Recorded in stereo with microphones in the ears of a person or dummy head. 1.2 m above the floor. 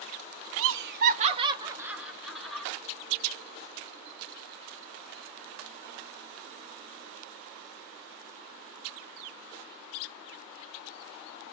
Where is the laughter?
75° right (ahead or behind), 0.5 m; by 2.7 s 5° left (ahead or behind), 1.3 m.